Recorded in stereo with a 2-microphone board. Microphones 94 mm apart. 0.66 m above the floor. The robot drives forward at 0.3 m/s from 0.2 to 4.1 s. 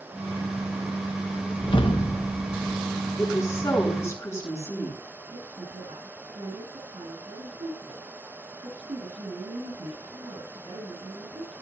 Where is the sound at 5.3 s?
85° right, 5 m.